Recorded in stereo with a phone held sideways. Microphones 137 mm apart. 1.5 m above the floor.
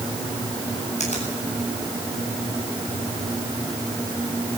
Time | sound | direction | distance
1.0 | a finger snap | 60° left (ahead or behind) | 8.5 m